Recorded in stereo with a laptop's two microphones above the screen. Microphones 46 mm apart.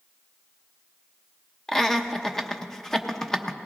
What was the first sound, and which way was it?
Laughter, 10° left (ahead or behind).